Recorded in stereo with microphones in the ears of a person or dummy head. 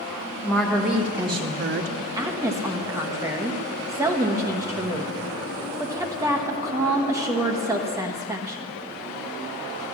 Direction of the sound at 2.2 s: 10° right (ahead or behind).